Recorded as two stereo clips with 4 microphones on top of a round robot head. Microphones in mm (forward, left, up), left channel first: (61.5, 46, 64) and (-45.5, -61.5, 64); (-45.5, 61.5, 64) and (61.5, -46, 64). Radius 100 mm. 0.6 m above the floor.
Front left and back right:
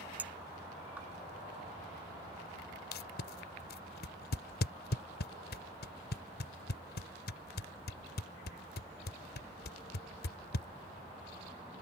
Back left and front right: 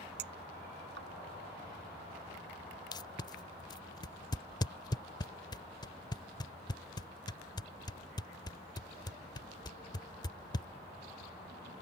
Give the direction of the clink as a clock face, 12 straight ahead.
2 o'clock.